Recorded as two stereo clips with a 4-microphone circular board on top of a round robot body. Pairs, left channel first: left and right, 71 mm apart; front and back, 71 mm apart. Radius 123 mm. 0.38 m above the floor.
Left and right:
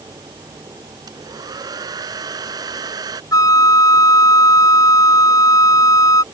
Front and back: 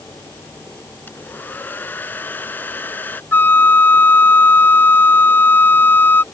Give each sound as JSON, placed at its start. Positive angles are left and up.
{"t": 1.1, "sound": "a hair dryer", "azimuth_deg": -65}
{"t": 3.3, "sound": "a flute", "azimuth_deg": 60}